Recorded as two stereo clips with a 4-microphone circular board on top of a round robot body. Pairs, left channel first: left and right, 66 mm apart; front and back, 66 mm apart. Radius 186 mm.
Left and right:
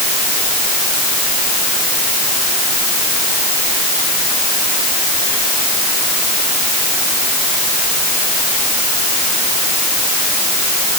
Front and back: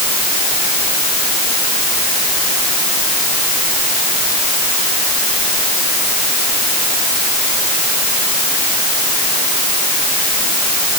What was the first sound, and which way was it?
Only background noise.